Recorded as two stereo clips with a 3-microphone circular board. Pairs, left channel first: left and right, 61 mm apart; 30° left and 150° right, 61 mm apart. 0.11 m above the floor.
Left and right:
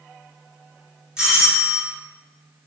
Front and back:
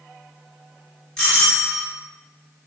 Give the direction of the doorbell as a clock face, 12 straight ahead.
1 o'clock.